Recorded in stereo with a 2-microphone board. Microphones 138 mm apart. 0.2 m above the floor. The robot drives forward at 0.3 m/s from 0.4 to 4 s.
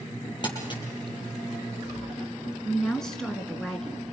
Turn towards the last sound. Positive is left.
turn(degrees=5)  # may be behind; listen again after turning